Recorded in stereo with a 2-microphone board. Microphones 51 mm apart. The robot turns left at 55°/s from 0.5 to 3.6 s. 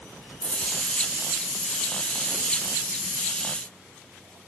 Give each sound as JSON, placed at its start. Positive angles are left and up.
{"t": 0.4, "sound": "a dropped coin", "side_deg": 60, "distance_m": 3.5}